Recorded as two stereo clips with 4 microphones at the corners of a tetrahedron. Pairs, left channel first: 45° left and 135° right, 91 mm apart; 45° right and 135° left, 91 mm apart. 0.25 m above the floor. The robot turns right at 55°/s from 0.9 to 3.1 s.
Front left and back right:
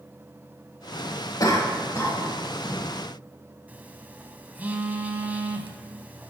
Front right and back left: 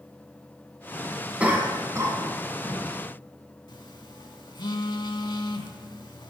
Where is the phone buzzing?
65° right, 0.6 m.